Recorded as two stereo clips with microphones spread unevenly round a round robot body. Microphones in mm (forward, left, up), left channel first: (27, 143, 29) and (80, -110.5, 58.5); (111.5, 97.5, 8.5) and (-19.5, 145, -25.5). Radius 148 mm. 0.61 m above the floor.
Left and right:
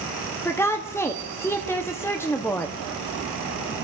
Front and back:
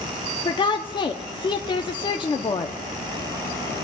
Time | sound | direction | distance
0.5 | a woman speaking | 35° left | 0.7 m